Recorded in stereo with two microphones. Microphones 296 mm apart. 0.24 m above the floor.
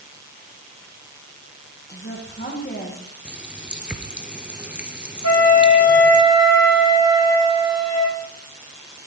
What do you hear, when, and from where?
1.9 s a woman speaking: 35° left (ahead or behind), 9.5 m
3.2 s a running tap: 5° right (ahead or behind), 3 m
5.2 s a flute: 55° left (ahead or behind), 8 m